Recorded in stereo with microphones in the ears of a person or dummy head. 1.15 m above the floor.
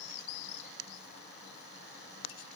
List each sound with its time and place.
Only background noise.